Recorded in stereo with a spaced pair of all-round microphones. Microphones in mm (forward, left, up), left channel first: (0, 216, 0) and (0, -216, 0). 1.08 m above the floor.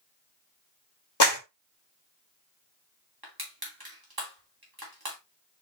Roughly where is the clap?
Left.